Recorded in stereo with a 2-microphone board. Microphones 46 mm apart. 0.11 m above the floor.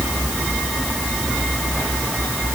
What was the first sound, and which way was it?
Only background noise.